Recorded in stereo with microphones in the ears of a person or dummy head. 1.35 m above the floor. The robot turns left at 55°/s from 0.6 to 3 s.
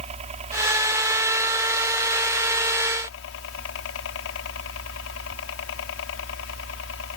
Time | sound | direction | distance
0.0 | a helicopter | 145° right | ?